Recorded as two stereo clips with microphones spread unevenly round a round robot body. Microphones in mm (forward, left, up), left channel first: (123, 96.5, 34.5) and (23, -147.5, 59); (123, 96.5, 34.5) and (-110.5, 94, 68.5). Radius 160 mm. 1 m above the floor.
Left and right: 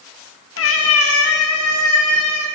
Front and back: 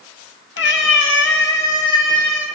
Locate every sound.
0.6 s a cat meowing: 35° left, 0.7 m; by 2.5 s 40° left, 1.9 m